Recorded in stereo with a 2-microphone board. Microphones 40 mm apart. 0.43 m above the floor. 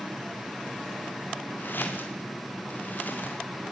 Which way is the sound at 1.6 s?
55° left (ahead or behind).